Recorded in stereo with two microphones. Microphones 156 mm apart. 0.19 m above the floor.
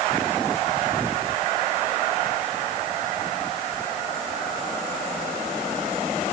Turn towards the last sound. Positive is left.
No sound to turn to.